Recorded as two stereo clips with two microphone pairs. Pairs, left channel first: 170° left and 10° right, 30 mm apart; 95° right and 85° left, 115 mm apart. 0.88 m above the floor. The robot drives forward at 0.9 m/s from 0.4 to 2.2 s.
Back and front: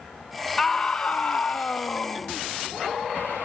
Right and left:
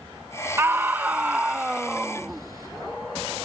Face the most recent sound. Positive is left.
turn(degrees=165)